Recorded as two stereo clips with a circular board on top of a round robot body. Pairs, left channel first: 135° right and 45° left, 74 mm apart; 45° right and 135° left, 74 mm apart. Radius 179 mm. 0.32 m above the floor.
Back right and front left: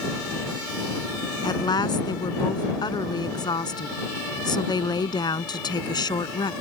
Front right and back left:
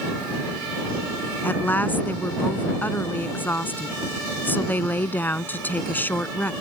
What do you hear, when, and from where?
1.4 s a woman speaking: 110° right